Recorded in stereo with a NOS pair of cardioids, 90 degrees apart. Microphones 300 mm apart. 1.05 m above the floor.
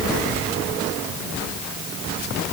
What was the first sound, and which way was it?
Only background noise.